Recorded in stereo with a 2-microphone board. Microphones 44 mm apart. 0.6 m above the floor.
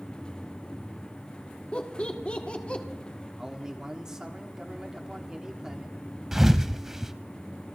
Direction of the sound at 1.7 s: 30° left (ahead or behind).